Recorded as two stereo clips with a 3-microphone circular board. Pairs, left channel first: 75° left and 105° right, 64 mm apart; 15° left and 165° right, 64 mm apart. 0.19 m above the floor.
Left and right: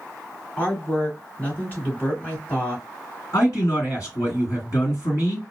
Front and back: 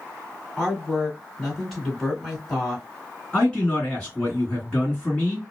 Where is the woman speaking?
95° left, 1.8 m.